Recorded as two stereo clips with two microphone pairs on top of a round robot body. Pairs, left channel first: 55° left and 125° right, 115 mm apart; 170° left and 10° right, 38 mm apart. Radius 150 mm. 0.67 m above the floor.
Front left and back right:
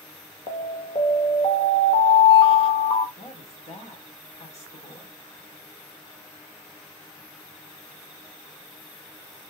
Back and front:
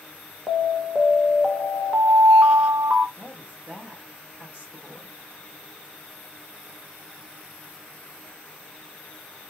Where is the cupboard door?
No cupboard door in this recording.